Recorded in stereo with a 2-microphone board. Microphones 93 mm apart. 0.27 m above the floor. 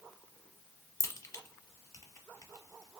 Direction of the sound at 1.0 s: 30° left (ahead or behind).